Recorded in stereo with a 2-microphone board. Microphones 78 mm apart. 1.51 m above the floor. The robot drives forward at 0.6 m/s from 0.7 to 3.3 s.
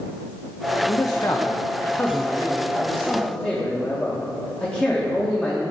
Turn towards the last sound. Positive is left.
turn(degrees=20)  # may be behind; listen again after turning